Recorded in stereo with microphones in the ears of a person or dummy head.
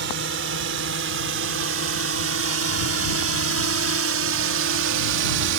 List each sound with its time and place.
0.0 s a drone: 55° right (ahead or behind); by 5.6 s 70° right (ahead or behind)